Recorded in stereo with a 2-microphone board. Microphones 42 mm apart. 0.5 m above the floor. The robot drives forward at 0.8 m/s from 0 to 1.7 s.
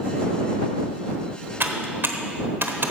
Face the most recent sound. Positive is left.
turn(degrees=-65)  # may be behind; listen again after turning